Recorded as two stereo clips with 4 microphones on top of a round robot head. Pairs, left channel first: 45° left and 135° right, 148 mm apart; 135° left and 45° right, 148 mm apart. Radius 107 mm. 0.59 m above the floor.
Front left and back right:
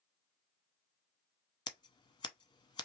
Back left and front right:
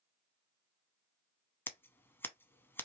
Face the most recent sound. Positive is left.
turn(degrees=70)